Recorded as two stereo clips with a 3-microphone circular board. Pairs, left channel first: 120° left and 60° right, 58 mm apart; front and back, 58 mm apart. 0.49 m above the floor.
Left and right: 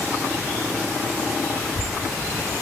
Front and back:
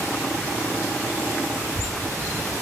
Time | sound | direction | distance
1.6 | a child speaking | 15° left | 0.6 m